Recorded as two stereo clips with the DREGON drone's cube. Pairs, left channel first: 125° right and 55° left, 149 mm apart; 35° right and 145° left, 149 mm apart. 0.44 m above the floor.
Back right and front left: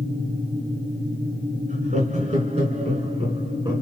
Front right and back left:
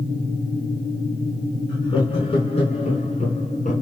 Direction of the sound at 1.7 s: 20° left.